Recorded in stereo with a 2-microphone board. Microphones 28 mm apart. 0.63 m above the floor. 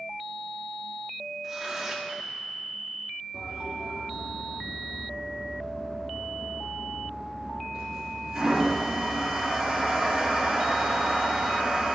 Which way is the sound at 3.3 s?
15° right (ahead or behind).